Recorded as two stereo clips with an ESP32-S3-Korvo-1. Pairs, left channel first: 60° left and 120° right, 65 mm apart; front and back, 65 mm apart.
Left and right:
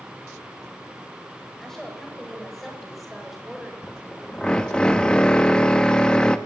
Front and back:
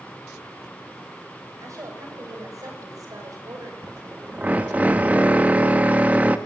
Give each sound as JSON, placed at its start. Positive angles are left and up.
{"t": 1.6, "sound": "a woman speaking", "azimuth_deg": 145, "distance_m": 9.0}
{"t": 3.8, "sound": "a drill", "azimuth_deg": 130, "distance_m": 1.2}